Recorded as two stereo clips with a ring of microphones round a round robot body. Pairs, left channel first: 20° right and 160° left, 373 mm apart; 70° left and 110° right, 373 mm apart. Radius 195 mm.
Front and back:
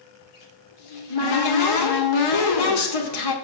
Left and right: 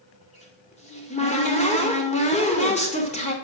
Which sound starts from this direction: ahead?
A cupboard door, at 0.2 s.